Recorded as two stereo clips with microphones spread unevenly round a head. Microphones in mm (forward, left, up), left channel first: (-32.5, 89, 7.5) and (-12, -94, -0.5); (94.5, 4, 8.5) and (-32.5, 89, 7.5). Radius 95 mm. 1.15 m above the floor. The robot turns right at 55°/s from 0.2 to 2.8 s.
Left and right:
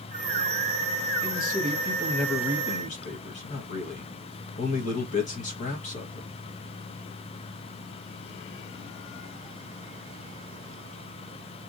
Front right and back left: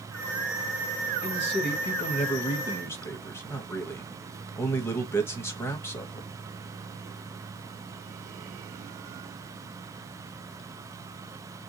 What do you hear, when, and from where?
1.2 s a man speaking: 45° right, 1.3 m; by 6.3 s 40° left, 1.3 m